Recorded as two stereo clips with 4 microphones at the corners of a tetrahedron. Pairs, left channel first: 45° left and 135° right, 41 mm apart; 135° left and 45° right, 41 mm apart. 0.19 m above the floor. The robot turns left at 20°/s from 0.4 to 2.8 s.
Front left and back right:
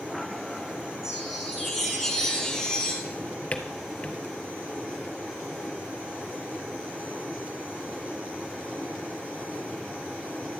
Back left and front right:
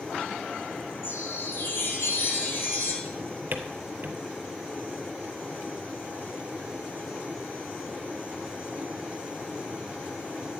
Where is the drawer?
10° right, 1.2 m.